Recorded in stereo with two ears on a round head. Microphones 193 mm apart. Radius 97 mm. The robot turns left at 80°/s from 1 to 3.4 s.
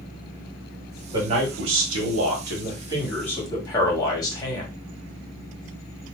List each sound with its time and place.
1.1 s a man speaking: 20° right, 1.7 m; by 4.7 s 160° left, 1.7 m